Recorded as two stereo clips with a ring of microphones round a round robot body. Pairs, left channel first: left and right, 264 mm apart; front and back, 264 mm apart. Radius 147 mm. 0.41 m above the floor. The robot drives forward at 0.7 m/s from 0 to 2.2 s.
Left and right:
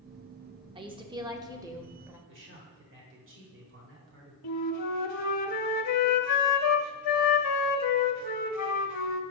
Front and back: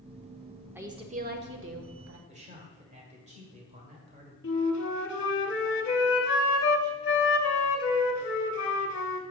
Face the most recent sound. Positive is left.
turn(degrees=55)